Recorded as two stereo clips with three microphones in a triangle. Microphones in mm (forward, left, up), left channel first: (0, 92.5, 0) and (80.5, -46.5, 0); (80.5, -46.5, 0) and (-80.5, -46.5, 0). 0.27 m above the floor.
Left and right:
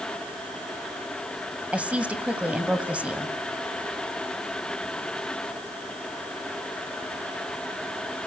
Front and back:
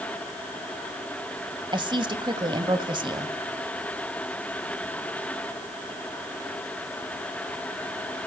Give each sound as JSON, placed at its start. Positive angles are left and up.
{"t": 1.7, "sound": "a woman speaking", "azimuth_deg": -140, "distance_m": 1.8}